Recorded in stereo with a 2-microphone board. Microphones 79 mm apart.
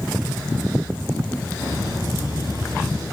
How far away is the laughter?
About 6.5 m.